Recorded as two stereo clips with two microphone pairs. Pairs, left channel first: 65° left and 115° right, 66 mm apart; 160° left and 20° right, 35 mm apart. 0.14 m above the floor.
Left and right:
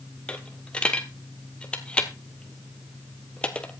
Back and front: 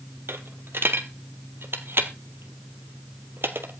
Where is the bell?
I don't hear a bell.